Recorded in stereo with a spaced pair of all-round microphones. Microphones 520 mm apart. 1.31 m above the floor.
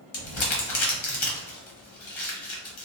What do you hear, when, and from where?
0.1 s crumpling: 60° left (ahead or behind), 0.8 m